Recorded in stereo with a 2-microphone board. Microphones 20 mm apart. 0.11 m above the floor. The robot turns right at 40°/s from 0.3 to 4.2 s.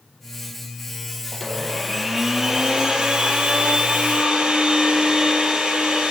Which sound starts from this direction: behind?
A blender, at 1.3 s.